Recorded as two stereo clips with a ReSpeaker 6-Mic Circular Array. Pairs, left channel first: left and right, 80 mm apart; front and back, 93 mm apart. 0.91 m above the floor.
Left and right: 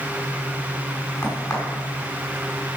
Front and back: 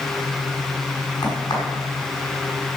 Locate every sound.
1.2 s a crack: 40° left, 5.5 m